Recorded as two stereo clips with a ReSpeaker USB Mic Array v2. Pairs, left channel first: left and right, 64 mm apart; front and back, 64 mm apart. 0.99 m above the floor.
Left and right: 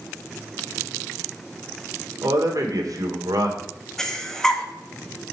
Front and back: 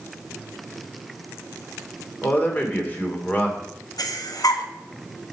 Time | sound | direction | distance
2.2 | a man speaking | 65° right | 2.5 m
4.0 | breathing | 10° left | 1.2 m